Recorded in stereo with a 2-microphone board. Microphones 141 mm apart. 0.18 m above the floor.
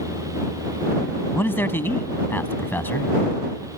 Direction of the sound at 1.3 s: 15° left (ahead or behind).